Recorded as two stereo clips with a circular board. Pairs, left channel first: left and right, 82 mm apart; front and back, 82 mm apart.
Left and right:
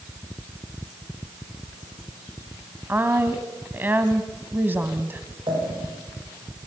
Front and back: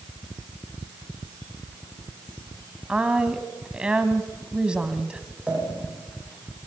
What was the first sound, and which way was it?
A woman speaking, 115° right.